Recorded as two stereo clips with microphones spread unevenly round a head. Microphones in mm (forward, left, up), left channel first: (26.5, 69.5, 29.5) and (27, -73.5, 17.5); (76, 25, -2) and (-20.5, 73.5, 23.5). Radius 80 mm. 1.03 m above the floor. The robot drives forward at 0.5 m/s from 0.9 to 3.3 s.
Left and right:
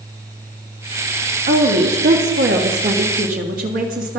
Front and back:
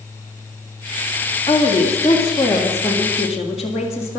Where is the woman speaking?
90° right, 2 m; by 4.2 s 115° right, 2 m.